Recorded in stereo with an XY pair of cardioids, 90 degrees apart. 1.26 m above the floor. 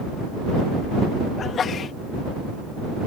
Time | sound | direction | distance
1.4 | a sneeze | 60° left | ?